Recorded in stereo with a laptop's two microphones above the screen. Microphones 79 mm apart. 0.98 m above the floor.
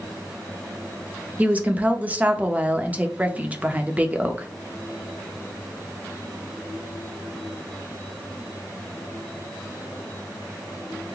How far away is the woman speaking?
About 0.8 m.